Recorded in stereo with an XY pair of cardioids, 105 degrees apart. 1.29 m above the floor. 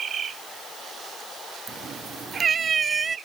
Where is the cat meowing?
55° right; by 3.2 s 35° right.